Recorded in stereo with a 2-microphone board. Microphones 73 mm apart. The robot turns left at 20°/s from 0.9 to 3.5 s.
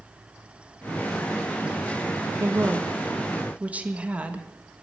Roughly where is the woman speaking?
Right.